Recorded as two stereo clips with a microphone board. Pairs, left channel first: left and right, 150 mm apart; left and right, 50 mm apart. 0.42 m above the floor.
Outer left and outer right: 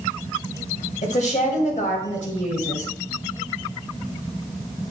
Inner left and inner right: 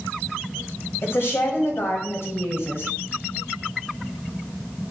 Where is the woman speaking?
60° left (ahead or behind), 2 m.